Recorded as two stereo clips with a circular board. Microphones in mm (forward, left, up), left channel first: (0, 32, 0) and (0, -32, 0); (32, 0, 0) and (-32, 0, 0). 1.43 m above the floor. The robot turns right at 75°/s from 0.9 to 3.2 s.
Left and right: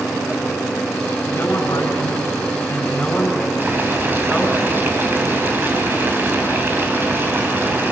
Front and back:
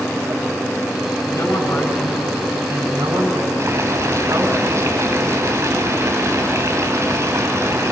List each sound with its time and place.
1.3 s a woman speaking: 30° left, 6 m; by 4.6 s 175° left, 6 m
3.6 s boiling: 145° right, 3 m